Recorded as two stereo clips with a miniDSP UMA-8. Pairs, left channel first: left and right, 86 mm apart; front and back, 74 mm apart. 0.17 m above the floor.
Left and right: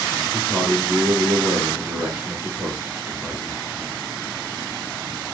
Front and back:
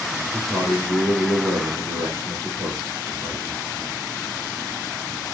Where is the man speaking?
160° right, 2 m.